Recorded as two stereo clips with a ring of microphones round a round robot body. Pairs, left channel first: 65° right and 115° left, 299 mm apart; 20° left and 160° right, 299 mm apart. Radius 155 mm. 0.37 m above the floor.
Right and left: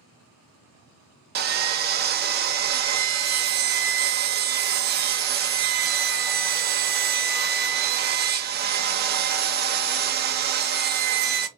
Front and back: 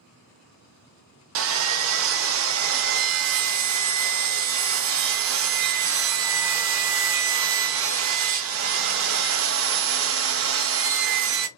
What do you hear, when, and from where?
1.4 s sawing: 165° left, 0.6 m